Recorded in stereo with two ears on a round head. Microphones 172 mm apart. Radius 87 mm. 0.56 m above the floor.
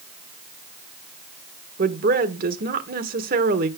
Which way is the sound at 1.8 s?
45° right (ahead or behind).